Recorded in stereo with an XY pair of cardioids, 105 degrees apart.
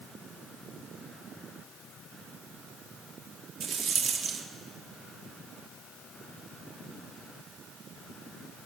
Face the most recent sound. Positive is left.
turn(degrees=-60)